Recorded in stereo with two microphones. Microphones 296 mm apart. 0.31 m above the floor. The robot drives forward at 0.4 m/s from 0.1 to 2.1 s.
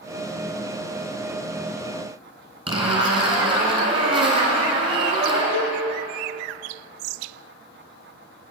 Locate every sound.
2.7 s a zipper: 15° right (ahead or behind), 2 m
5.5 s a cowbell: 65° left (ahead or behind), 0.9 m